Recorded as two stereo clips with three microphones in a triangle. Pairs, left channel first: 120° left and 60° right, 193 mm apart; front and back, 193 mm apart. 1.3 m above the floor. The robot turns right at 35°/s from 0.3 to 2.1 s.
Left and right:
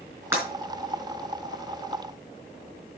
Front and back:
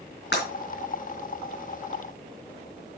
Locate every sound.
0.3 s breaking glass: 20° left, 4 m; by 0.5 s 25° left, 4 m